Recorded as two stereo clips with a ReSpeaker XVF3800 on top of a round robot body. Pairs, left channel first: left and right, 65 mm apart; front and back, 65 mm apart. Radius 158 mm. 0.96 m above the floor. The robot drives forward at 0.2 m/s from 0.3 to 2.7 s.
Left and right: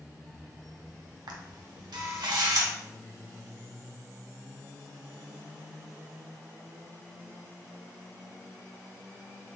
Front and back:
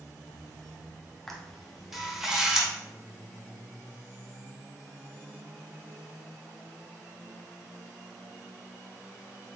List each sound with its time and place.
1.3 s a camera shutter: 85° right, 0.9 m; by 2.7 s 105° right, 0.9 m